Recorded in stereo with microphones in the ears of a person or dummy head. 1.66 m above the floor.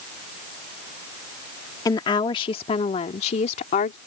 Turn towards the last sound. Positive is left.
turn(degrees=45)  # may be behind; listen again after turning